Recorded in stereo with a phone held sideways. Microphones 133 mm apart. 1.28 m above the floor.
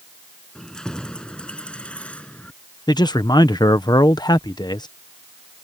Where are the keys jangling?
5° left (ahead or behind); by 2.5 s 10° left (ahead or behind).